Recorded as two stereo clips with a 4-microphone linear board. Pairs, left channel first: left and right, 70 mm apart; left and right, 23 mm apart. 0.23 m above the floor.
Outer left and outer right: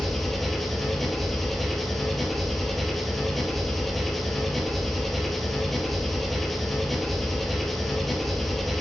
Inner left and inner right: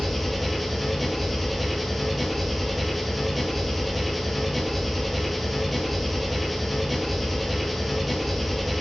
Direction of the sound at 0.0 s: Centre (ahead or behind).